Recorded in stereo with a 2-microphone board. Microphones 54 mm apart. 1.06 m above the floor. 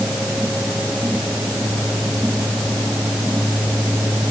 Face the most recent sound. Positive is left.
No sound to turn to.